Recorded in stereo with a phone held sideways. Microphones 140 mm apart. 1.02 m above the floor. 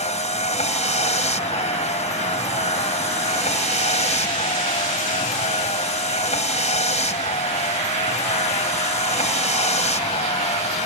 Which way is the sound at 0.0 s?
55° left (ahead or behind).